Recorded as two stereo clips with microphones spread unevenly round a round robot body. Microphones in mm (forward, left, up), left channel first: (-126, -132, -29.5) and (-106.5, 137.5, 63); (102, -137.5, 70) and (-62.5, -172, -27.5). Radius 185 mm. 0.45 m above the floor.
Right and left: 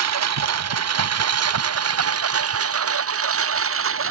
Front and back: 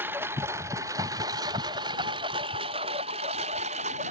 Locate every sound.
0.0 s a lawn mower: 105° left; by 4.1 s 125° left